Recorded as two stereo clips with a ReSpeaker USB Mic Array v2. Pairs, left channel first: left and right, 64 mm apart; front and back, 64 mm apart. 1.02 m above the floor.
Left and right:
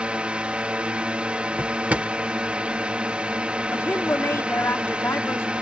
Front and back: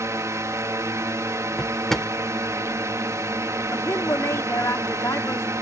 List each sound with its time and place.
0.0 s a drone: 160° right
1.6 s a drawer: 75° right
3.7 s a woman speaking: 40° left